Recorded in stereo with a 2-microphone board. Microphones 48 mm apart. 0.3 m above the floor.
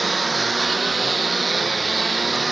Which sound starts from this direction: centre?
A lawn mower, at 0.0 s.